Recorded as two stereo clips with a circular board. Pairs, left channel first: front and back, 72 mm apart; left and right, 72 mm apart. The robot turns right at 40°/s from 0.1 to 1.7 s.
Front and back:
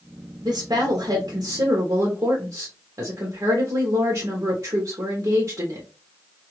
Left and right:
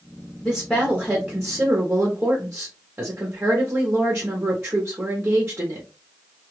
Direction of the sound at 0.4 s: 155° left.